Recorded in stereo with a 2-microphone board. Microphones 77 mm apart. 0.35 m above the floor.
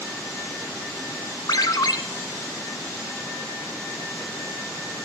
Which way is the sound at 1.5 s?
65° left (ahead or behind).